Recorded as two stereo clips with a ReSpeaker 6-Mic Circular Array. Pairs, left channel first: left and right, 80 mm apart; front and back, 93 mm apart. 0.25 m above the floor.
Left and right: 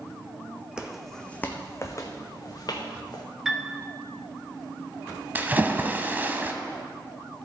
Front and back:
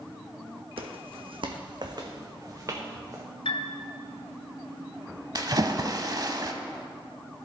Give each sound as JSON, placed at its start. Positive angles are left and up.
{"t": 0.8, "sound": "footsteps", "azimuth_deg": -170, "distance_m": 0.8}
{"t": 3.5, "sound": "a piano", "azimuth_deg": -5, "distance_m": 0.9}
{"t": 5.3, "sound": "a splash", "azimuth_deg": -150, "distance_m": 0.7}